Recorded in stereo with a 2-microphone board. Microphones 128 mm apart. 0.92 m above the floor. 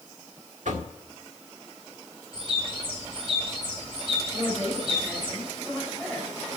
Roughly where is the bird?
Right.